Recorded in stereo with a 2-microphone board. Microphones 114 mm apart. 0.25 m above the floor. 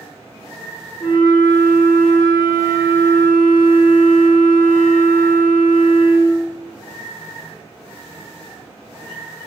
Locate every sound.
1.0 s a flute: 35° left (ahead or behind), 0.7 m